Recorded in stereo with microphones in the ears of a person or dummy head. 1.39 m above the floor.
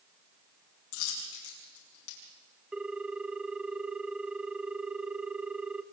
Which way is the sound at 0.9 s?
85° left.